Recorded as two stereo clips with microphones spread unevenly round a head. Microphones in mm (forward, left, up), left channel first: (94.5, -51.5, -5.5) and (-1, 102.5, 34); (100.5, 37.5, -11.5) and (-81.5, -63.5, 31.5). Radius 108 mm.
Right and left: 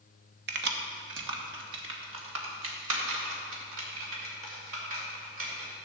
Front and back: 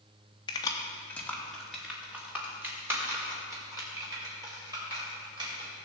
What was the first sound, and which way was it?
Keys jangling, 105° left.